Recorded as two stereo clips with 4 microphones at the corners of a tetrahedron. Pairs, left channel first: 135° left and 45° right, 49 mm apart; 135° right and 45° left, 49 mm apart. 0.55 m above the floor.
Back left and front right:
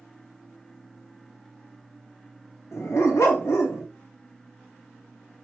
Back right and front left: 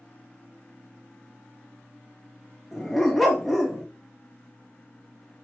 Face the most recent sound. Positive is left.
turn(degrees=135)